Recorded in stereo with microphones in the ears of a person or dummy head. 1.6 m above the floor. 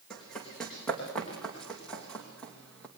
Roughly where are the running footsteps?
Centre.